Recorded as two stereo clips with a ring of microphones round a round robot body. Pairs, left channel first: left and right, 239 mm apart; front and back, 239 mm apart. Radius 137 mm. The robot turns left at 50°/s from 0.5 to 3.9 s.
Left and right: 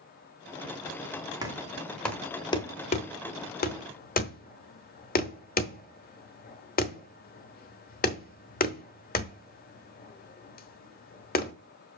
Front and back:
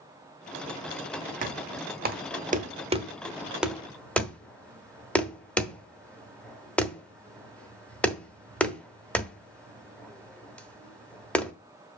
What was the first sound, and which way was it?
Knocking, 155° right.